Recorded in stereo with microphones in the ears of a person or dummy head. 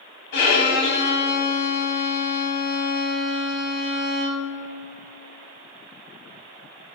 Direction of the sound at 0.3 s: 55° left (ahead or behind).